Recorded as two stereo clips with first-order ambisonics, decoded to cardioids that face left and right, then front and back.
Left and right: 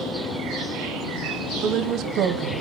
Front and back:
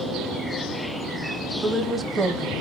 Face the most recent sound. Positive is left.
turn(degrees=-110)